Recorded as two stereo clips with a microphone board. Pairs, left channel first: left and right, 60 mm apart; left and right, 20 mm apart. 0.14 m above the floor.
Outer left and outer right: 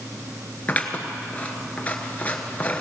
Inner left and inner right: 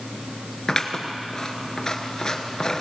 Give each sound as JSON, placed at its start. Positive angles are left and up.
{"t": 0.7, "sound": "scissors", "side_deg": 25, "distance_m": 1.2}